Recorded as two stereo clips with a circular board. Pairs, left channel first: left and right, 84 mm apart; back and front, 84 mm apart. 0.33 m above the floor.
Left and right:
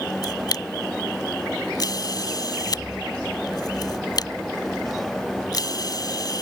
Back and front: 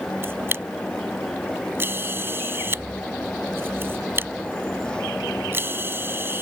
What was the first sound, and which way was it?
A camera shutter, 60° left.